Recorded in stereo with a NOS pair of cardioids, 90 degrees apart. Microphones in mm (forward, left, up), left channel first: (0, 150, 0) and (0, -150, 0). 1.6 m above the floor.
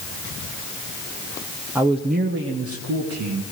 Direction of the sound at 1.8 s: 5° right.